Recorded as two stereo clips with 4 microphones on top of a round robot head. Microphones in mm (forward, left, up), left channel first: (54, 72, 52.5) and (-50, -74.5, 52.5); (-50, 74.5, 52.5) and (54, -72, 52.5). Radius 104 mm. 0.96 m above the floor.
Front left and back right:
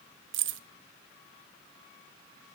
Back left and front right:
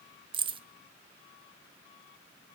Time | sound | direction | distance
0.3 | keys jangling | 120° right | 0.8 m